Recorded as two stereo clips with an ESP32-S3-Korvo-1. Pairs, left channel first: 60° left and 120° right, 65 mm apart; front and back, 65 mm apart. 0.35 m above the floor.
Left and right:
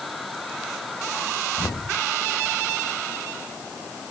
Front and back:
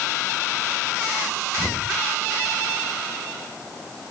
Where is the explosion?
65° left.